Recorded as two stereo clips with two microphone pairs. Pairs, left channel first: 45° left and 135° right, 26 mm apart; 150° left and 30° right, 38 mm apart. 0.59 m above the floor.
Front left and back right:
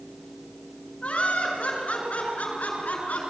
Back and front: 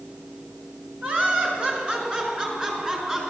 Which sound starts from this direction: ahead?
Laughter, at 1.0 s.